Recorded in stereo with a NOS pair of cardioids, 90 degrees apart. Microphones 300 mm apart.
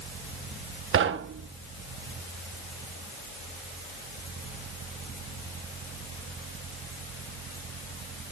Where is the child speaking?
I don't hear a child speaking.